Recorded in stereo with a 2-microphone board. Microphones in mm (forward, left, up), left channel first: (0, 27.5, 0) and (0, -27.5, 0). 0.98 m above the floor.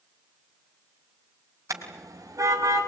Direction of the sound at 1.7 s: 85° right.